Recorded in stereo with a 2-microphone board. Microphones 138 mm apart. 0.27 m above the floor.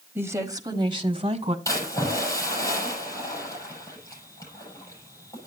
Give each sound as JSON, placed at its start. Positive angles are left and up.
{"t": 0.1, "sound": "a woman speaking", "side_deg": -15, "distance_m": 1.3}
{"t": 1.6, "sound": "a splash", "side_deg": 25, "distance_m": 9.5}